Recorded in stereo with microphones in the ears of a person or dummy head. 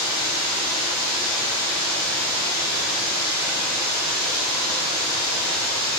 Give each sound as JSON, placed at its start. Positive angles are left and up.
{"t": 0.0, "sound": "running water", "side_deg": 0, "distance_m": 0.9}